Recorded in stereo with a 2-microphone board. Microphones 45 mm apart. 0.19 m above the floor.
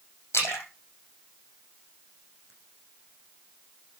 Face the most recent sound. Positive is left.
turn(degrees=80)